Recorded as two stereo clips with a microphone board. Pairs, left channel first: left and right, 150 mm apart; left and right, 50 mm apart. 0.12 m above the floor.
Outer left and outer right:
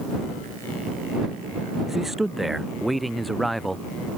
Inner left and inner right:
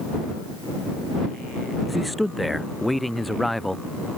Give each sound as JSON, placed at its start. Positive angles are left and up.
{"t": 1.9, "sound": "a man speaking", "side_deg": 0}